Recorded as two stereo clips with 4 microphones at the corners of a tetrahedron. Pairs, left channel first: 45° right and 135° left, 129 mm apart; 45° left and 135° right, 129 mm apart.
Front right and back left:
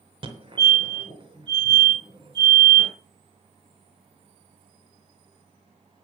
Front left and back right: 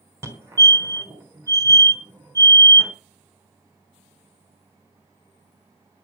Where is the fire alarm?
165° left, 3.5 m.